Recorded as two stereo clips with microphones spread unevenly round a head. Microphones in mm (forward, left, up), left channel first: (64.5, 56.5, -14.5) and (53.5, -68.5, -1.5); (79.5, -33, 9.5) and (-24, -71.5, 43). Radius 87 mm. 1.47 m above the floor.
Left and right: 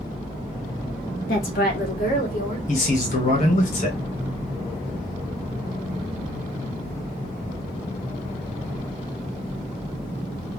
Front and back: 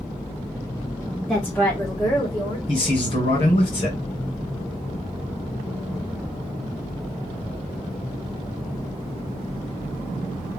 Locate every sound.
1.3 s a woman speaking: 105° left, 1.4 m; by 2.6 s 80° left, 2 m
2.7 s a man speaking: 70° left, 2.5 m